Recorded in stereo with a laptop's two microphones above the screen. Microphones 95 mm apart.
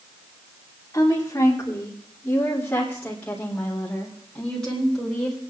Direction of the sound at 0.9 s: 35° left (ahead or behind).